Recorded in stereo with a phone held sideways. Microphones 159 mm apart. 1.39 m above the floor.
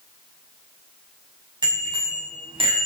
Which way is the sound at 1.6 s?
30° right (ahead or behind).